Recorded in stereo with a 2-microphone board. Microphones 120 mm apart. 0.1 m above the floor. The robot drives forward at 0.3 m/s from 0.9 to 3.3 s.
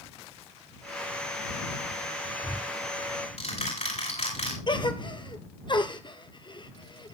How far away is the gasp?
About 1.0 m.